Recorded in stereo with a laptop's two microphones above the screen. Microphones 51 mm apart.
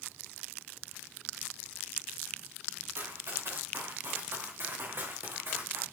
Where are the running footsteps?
60° right (ahead or behind), 5.5 m; by 5.8 s 50° right (ahead or behind), 4 m.